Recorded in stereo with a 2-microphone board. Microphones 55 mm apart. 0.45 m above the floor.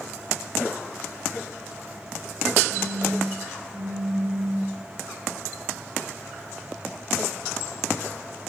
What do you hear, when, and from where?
2.7 s a phone buzzing: 30° right (ahead or behind), 8 m